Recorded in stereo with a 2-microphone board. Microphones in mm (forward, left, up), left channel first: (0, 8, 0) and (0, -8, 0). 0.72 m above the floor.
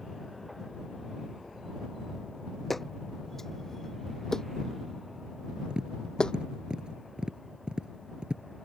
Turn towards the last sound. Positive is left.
turn(degrees=-85)